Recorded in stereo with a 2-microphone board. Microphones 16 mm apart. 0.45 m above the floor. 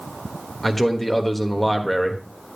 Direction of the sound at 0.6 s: 10° left (ahead or behind).